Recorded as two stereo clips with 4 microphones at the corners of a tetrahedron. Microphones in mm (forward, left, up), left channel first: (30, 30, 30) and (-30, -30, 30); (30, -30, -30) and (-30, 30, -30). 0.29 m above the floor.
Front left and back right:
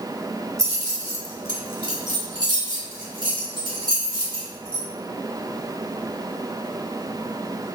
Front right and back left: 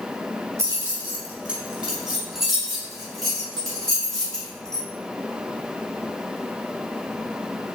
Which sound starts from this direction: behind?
Keys jangling, at 0.6 s.